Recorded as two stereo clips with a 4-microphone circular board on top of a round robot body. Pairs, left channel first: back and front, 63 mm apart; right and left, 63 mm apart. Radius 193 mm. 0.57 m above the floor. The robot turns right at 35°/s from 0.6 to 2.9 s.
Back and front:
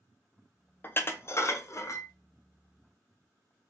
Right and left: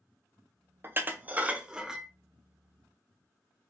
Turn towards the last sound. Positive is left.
turn(degrees=-155)